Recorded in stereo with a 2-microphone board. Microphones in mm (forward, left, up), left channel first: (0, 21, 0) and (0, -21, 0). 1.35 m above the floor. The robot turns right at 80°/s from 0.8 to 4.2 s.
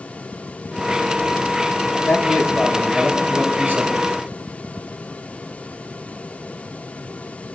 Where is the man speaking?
100° left, 4 m; by 4.1 s 95° right, 4 m.